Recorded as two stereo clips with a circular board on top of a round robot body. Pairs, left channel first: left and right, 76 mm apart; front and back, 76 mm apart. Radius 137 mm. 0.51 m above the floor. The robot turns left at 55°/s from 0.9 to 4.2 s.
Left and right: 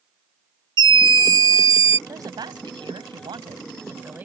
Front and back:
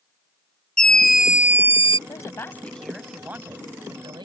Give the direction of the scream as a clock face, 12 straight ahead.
3 o'clock.